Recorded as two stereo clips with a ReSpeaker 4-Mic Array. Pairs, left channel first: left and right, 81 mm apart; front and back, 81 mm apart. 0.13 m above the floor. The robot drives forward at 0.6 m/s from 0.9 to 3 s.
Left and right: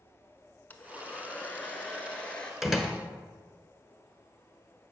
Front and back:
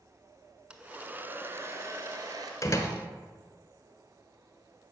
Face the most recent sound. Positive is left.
turn(degrees=-10)